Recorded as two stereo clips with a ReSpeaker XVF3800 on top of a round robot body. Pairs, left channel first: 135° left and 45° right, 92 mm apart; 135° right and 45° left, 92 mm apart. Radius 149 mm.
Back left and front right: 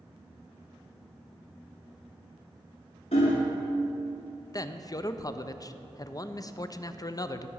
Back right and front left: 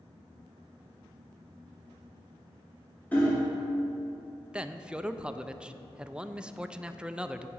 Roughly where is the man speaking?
Behind left.